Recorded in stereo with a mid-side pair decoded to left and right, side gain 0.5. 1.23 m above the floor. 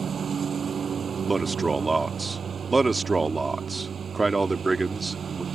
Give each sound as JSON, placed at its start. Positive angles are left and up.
{"t": 0.0, "sound": "a lawn mower", "azimuth_deg": -40}
{"t": 1.3, "sound": "a man speaking", "azimuth_deg": -20}